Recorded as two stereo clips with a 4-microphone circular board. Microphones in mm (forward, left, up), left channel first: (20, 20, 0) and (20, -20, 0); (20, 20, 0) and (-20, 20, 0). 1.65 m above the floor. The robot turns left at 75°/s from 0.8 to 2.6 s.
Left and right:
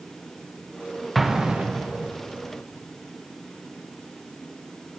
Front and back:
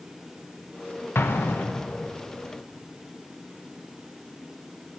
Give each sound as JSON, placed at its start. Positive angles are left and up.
{"t": 1.1, "sound": "an explosion", "azimuth_deg": 0, "distance_m": 0.9}